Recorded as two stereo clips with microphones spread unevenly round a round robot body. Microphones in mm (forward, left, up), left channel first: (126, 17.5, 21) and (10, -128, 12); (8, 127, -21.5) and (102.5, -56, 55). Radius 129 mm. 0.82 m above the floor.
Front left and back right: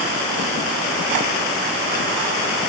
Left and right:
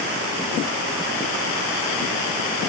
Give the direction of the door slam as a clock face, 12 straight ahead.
No door slam in this recording.